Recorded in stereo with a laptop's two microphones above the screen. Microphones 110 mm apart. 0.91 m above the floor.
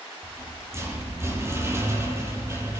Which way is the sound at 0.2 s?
25° right (ahead or behind).